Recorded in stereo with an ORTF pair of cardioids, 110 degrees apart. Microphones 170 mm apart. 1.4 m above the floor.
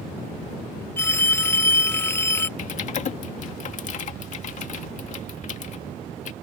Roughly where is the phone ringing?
Ahead.